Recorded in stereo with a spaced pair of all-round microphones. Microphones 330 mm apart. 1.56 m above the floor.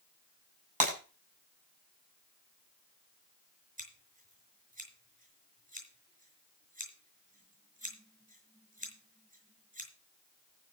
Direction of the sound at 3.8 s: 25° right (ahead or behind).